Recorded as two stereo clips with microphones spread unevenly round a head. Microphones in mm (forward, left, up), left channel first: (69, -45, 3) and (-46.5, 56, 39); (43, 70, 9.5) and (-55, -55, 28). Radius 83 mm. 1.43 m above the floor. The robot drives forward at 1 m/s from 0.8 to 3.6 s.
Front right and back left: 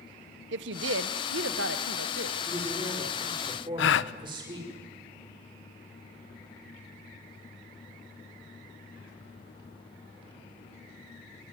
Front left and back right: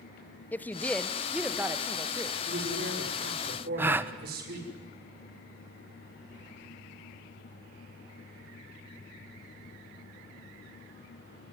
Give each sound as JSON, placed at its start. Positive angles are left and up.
{"t": 0.5, "sound": "a woman speaking", "azimuth_deg": 130, "distance_m": 1.2}
{"t": 2.5, "sound": "a man speaking", "azimuth_deg": -150, "distance_m": 5.5}
{"t": 3.8, "sound": "a gasp", "azimuth_deg": -50, "distance_m": 0.8}